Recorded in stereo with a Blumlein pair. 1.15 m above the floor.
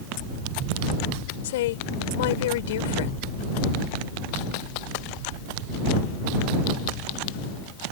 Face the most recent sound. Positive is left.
turn(degrees=55)